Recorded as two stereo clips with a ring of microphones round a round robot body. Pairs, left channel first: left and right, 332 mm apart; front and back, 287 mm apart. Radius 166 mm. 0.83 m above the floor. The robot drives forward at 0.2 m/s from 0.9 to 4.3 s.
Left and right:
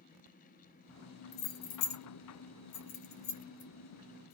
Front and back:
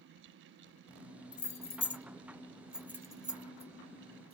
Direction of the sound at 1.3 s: 65° left.